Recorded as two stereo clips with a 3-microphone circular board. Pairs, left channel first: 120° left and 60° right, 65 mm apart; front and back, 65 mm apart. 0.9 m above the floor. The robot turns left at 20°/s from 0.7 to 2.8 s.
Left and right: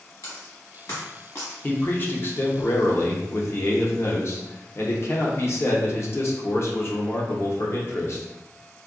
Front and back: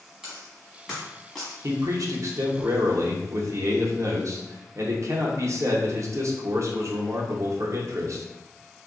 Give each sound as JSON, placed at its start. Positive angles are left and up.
{"t": 0.2, "sound": "a dropped coin", "azimuth_deg": 100, "distance_m": 1.2}
{"t": 1.6, "sound": "a man speaking", "azimuth_deg": 175, "distance_m": 0.7}